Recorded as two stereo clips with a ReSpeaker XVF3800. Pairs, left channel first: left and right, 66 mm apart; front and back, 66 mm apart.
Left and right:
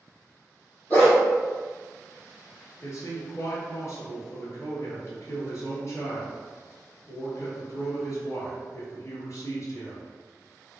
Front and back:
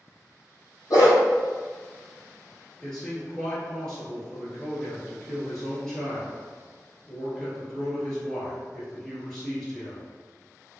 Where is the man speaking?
80° left, 1.5 m.